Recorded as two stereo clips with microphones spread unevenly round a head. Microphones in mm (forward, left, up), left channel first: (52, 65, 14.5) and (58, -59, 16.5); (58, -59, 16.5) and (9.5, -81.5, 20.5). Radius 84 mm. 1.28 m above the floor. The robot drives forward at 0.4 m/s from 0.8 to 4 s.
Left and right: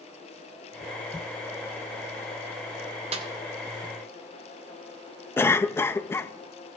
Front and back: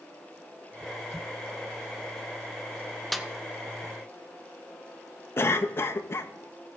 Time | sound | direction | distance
3.1 | a snare drum | 65° right | 0.7 m
5.4 | a cough | 25° left | 0.6 m